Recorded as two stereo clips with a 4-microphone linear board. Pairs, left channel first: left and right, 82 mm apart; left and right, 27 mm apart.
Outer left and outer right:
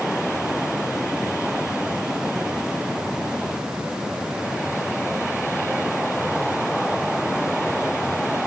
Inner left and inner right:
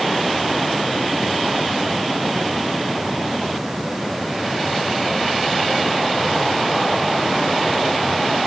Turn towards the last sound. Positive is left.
No sound to turn to.